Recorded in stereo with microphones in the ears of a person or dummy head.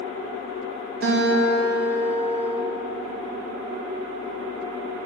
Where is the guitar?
65° right (ahead or behind), 1.1 m.